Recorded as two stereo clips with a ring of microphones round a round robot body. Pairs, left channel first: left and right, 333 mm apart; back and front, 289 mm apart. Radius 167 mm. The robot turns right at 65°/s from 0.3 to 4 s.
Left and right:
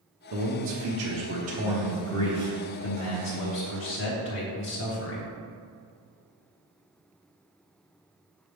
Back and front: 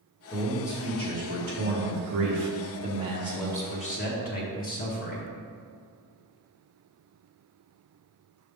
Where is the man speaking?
110° right, 1.1 m; by 5.3 s 130° left, 1.1 m.